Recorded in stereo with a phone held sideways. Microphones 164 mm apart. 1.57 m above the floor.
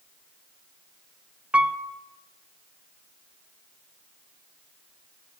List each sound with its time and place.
1.5 s a piano: 5° right (ahead or behind), 0.5 m